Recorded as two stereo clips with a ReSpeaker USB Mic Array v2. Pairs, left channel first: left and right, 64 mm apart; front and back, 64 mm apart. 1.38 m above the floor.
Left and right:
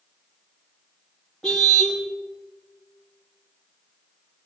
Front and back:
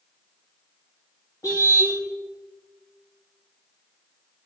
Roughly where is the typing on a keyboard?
I don't hear typing on a keyboard.